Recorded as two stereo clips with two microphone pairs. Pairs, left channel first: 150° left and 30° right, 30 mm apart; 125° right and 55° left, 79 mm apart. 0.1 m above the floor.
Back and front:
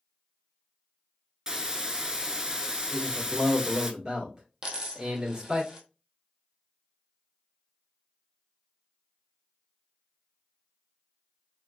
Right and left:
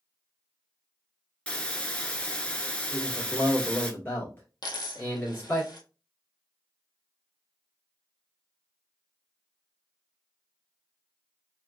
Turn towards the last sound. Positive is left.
turn(degrees=-95)